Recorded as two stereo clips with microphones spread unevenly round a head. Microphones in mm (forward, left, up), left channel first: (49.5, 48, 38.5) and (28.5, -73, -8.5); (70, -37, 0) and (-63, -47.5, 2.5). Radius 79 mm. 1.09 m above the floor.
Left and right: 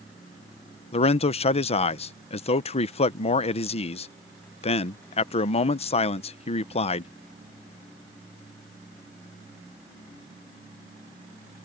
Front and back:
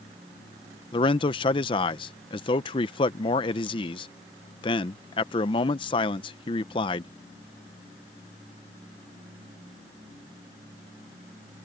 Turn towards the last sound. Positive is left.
turn(degrees=40)